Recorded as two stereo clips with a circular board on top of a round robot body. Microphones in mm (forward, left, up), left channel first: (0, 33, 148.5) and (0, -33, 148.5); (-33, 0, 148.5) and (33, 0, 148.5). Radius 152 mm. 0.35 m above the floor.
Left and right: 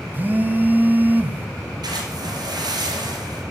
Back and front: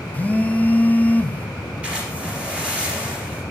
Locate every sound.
0.1 s a phone buzzing: 130° right, 0.6 m
1.8 s a splash: 75° right, 2.5 m